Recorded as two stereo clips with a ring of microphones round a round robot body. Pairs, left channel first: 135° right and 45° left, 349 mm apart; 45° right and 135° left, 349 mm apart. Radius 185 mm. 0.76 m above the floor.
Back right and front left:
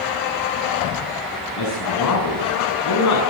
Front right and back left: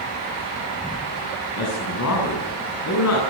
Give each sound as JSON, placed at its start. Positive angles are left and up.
{"t": 1.6, "sound": "a man speaking", "azimuth_deg": -95, "distance_m": 7.5}